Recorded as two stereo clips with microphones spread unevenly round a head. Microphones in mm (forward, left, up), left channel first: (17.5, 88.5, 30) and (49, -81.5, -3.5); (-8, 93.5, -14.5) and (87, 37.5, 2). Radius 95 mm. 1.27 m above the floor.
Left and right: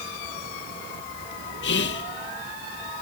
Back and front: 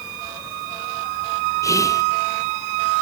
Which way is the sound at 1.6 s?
85° left.